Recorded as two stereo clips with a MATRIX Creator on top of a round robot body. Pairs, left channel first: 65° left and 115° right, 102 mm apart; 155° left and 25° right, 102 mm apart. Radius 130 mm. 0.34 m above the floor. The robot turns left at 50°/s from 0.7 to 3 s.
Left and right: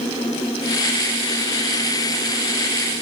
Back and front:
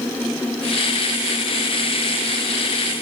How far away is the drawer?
I don't hear a drawer.